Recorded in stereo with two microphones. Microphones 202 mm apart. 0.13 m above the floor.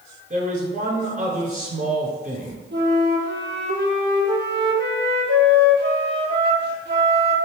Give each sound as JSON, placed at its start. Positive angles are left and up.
{"t": 0.3, "sound": "a man speaking", "side_deg": -40, "distance_m": 1.3}
{"t": 2.7, "sound": "a flute", "side_deg": -60, "distance_m": 0.9}